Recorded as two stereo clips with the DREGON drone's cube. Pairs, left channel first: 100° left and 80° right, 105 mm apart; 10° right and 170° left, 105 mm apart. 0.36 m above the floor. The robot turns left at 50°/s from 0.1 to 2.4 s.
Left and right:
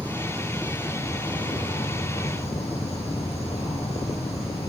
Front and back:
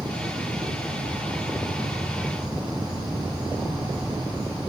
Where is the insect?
155° right, 2.5 m; by 4.7 s 90° left, 2.5 m.